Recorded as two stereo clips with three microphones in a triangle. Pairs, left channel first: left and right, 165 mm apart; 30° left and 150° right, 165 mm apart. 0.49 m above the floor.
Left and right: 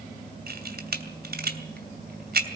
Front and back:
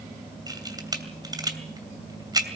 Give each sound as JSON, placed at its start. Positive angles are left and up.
{"t": 0.5, "sound": "a camera shutter", "azimuth_deg": -85, "distance_m": 2.5}